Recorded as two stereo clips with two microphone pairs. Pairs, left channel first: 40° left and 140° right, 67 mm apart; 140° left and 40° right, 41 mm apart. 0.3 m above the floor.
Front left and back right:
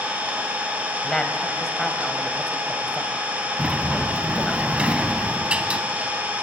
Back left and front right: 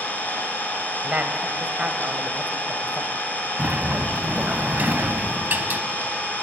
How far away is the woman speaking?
About 1.2 m.